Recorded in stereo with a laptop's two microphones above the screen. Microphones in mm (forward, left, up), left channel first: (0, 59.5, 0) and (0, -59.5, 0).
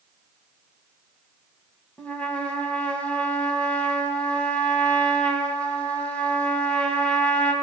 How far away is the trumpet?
About 1.4 m.